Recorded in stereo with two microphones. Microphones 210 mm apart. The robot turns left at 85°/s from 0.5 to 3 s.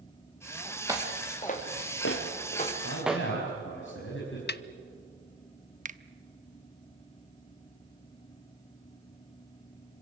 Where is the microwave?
I don't hear a microwave.